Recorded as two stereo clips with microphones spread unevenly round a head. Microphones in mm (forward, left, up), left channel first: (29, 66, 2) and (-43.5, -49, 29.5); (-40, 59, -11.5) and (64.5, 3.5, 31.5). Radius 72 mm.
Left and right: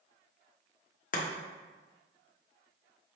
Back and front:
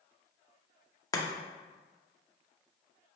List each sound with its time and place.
1.1 s chopping: 90° left, 0.7 m